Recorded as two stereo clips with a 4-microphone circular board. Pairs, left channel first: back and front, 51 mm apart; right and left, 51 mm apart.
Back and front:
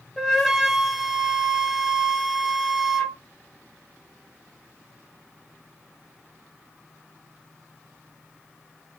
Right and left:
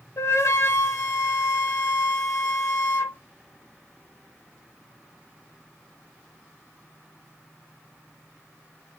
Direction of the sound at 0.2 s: 90° right.